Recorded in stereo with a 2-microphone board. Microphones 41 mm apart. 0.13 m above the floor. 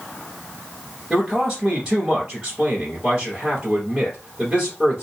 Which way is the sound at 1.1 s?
15° right (ahead or behind).